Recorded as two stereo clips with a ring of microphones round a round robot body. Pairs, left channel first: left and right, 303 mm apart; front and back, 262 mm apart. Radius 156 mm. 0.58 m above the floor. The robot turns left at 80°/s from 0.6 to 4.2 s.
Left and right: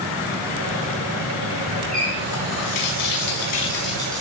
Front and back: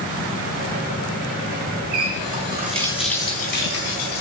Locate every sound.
1.9 s a running tap: straight behind, 4 m; by 4.2 s 5° right, 4 m